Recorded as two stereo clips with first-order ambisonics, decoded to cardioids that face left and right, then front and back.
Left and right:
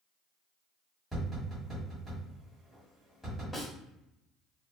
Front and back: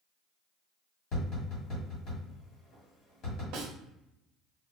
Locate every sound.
1.1 s tapping: 10° left, 1.5 m
3.5 s a snare drum: 165° left, 0.9 m